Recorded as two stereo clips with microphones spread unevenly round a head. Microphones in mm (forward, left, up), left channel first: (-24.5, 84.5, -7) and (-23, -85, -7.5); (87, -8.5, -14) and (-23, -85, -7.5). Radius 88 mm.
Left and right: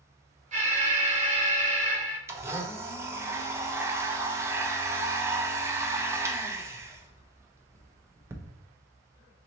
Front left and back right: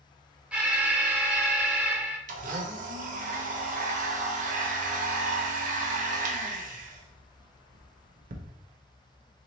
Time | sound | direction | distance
0.5 | an alarm | 65° right | 1.1 m
2.3 | a blender | 165° right | 0.6 m